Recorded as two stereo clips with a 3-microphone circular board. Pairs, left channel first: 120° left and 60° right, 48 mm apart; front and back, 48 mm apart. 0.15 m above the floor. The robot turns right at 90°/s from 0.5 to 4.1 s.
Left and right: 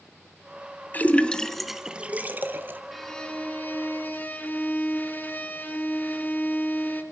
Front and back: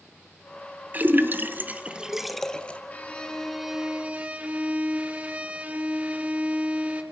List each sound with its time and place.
0.9 s a splash: 150° left, 1.1 m; by 2.8 s 45° right, 1.1 m
2.9 s a violin: 30° left, 1.9 m; by 7.0 s 140° left, 1.9 m